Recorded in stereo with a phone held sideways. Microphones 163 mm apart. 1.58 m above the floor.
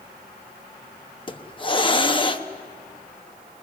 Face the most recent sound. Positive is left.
turn(degrees=30)  # may be behind; listen again after turning